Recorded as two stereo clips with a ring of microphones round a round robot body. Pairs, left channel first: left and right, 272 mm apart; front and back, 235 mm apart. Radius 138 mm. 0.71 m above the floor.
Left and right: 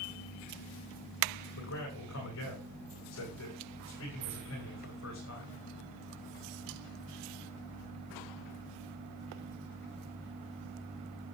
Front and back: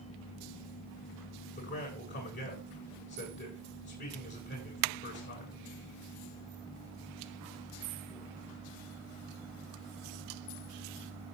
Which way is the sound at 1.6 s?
45° left.